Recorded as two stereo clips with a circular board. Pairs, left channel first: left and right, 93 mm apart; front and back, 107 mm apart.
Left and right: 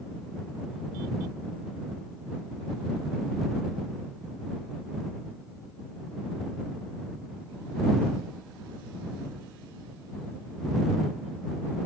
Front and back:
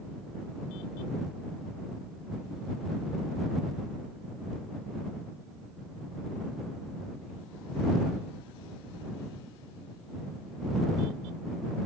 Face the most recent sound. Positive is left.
No sound to turn to.